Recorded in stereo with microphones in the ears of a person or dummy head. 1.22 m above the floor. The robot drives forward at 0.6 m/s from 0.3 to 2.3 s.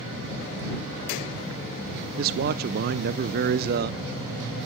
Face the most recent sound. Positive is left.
turn(degrees=-50)  # may be behind; listen again after turning